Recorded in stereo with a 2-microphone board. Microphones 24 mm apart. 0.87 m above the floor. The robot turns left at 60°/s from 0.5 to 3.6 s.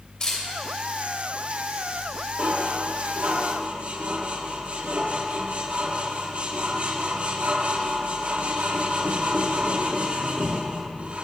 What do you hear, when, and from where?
0.2 s a camera shutter: 30° left (ahead or behind), 2.5 m
2.4 s dishes clattering: 50° right (ahead or behind), 0.8 m; by 11.2 s 55° right (ahead or behind), 0.8 m